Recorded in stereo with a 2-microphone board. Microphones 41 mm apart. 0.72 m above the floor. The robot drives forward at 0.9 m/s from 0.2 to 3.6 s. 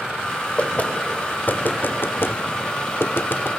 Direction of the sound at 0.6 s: 30° left (ahead or behind).